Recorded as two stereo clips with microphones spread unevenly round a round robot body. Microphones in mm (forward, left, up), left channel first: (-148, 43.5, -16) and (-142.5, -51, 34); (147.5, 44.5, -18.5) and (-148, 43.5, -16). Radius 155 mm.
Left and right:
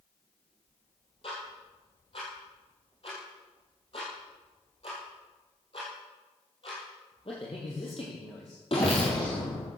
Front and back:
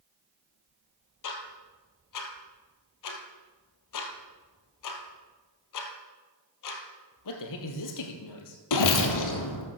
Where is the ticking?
20° left, 2.5 m.